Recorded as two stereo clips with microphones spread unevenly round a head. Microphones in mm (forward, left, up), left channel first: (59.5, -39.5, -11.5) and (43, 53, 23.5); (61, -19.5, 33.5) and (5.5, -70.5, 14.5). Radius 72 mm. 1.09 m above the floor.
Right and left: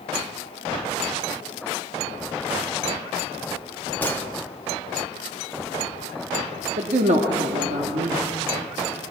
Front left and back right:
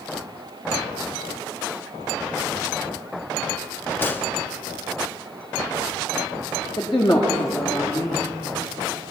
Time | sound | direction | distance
4.0 | a gunshot | 25° right | 1.4 m
6.8 | a man speaking | 105° left | 1.8 m